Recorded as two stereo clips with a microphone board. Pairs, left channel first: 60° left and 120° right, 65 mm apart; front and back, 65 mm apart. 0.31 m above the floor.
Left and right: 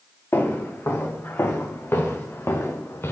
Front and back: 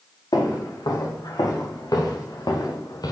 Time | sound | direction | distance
0.3 | footsteps | 5° left | 4.5 m